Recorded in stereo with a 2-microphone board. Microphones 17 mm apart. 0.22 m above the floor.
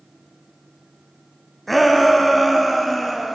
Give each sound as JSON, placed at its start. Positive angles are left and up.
{"t": 1.7, "sound": "a shout", "side_deg": 5, "distance_m": 1.7}